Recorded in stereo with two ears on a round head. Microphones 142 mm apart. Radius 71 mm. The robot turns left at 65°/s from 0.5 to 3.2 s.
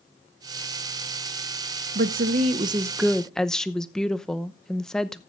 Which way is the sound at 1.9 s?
105° right.